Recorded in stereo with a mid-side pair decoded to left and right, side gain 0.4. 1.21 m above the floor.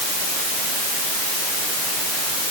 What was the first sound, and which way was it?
Only background noise.